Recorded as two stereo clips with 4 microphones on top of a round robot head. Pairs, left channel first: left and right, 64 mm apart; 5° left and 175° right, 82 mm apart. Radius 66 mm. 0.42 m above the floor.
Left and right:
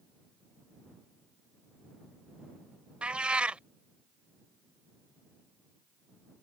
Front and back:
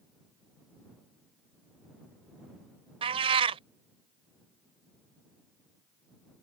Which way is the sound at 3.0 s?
165° right.